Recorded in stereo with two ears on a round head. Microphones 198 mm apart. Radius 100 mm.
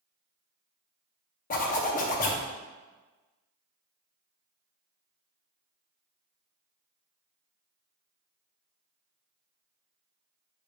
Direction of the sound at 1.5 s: 35° left (ahead or behind).